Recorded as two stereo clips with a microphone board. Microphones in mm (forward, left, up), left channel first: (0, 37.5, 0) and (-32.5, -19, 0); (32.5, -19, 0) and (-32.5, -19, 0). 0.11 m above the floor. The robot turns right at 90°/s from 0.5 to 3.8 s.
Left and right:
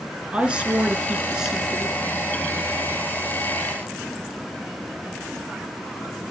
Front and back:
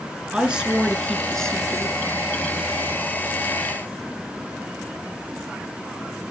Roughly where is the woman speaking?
Behind right.